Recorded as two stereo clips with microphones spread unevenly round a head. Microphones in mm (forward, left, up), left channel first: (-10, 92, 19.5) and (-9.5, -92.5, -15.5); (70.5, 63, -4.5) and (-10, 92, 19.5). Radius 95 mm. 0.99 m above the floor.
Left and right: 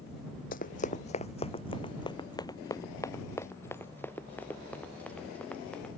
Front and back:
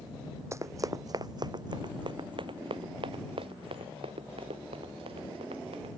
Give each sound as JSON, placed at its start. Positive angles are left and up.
{"t": 0.5, "sound": "running footsteps", "azimuth_deg": 120}